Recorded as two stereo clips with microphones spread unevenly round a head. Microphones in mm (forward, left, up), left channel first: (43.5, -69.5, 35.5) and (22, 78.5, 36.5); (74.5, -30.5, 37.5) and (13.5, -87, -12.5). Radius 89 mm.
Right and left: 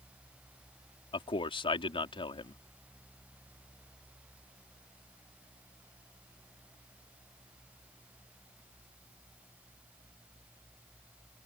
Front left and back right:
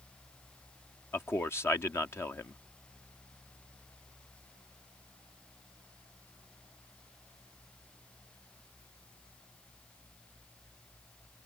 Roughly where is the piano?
I don't hear a piano.